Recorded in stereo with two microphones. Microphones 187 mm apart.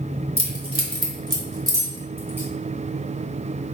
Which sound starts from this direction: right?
Keys jangling, at 0.4 s.